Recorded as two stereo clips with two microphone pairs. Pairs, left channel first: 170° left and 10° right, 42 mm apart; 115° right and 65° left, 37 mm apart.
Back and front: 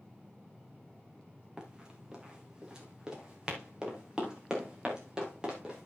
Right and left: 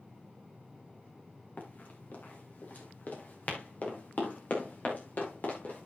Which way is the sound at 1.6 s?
80° right.